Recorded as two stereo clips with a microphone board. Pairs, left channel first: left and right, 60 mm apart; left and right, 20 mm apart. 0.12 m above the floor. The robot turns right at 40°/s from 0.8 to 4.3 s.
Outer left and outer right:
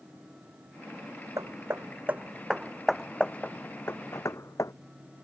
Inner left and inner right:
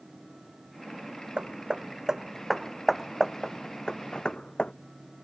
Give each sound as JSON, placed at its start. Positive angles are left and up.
{"t": 1.4, "sound": "hammering", "side_deg": -60}